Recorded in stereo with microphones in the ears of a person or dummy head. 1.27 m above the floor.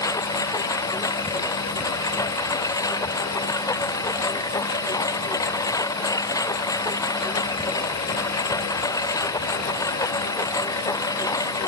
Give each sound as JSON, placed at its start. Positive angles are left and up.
{"t": 0.0, "sound": "a lawn mower", "side_deg": 15}